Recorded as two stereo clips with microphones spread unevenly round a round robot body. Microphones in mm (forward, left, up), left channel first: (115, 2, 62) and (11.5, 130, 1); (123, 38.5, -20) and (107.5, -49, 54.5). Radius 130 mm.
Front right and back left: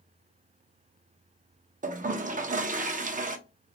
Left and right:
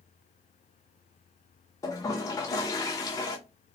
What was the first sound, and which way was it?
A toilet flushing, 100° left.